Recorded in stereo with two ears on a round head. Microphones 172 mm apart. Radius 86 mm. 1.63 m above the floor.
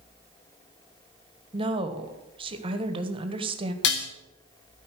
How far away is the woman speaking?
About 1.4 m.